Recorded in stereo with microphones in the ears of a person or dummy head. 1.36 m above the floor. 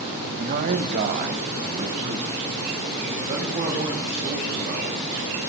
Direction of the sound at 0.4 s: 55° right (ahead or behind).